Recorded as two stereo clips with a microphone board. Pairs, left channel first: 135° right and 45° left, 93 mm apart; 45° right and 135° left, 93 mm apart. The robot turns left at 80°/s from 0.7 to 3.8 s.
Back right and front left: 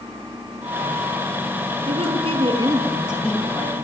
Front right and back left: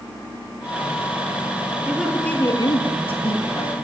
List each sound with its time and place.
1.9 s a woman speaking: 60° left, 10 m; by 3.8 s 90° right, 10 m